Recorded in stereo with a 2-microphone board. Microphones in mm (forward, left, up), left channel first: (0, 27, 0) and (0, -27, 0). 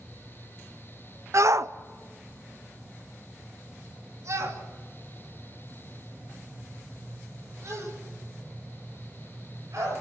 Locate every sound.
1.3 s a shout: 65° right (ahead or behind), 0.6 m